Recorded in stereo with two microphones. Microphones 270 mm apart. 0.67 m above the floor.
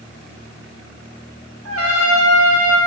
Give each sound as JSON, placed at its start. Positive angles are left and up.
{"t": 1.6, "sound": "a trumpet", "side_deg": -60, "distance_m": 0.8}